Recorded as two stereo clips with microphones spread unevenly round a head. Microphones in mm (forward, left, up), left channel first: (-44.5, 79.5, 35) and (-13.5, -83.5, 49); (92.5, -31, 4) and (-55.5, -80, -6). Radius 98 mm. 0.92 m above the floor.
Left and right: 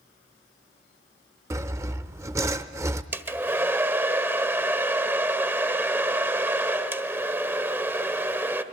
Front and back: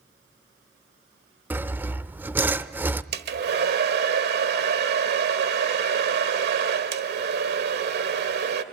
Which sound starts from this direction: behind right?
A hair dryer, at 3.1 s.